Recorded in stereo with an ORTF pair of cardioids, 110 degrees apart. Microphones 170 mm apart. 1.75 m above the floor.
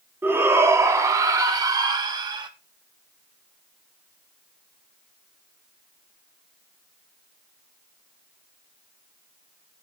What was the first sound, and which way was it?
A shout, 10° right.